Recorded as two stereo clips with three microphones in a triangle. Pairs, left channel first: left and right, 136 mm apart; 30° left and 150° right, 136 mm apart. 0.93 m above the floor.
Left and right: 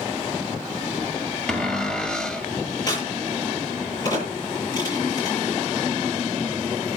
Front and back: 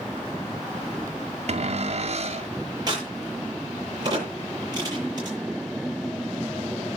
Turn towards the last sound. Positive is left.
turn(degrees=150)